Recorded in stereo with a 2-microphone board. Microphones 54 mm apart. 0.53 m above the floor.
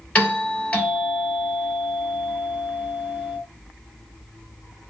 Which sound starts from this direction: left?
A doorbell, at 0.1 s.